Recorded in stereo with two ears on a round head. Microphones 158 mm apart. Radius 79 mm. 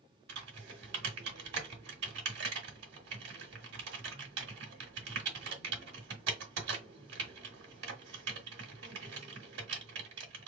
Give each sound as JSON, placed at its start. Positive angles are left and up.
{"t": 0.3, "sound": "typing on a keyboard", "side_deg": -65, "distance_m": 1.5}